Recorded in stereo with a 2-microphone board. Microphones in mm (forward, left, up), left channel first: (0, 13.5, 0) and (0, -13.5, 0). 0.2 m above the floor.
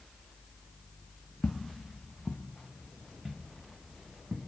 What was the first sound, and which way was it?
Footsteps, 70° left (ahead or behind).